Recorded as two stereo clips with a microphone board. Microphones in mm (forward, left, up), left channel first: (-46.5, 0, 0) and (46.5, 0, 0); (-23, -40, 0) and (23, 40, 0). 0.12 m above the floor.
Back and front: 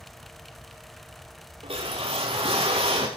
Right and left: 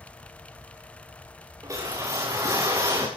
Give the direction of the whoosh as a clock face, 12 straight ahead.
12 o'clock.